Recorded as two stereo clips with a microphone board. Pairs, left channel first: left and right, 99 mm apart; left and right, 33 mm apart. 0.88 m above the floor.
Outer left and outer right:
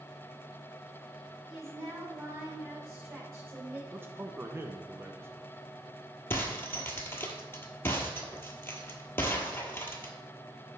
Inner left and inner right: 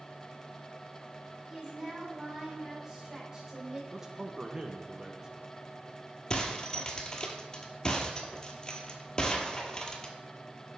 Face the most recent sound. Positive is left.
turn(degrees=25)  # may be behind; listen again after turning